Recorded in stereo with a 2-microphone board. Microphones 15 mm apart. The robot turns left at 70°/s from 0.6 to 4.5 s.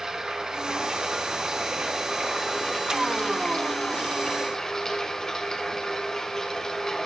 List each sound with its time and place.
0.0 s running water: 50° right, 3 m; by 7.1 s 40° left, 3 m